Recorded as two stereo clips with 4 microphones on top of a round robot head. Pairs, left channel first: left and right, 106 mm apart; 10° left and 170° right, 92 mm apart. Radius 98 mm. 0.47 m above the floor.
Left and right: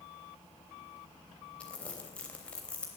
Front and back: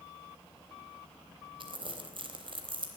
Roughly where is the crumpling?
Behind.